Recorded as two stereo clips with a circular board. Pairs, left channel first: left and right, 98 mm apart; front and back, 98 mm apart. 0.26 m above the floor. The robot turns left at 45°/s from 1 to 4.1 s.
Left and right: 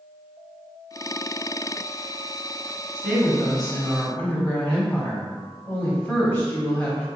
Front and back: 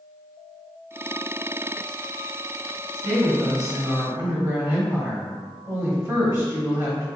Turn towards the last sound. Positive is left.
turn(degrees=155)